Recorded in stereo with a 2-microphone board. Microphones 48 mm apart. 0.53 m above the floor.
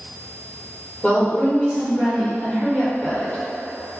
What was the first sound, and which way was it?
A woman speaking, 30° left (ahead or behind).